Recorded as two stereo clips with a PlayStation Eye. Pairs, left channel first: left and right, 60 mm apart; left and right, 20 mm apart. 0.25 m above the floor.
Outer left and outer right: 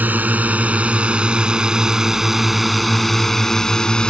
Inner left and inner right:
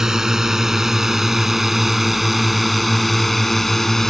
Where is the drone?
30° right (ahead or behind); by 4.1 s 15° left (ahead or behind).